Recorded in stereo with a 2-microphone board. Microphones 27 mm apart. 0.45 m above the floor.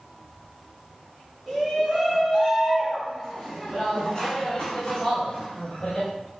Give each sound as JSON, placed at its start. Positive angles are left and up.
{"t": 1.5, "sound": "a shout", "side_deg": -5, "distance_m": 5.5}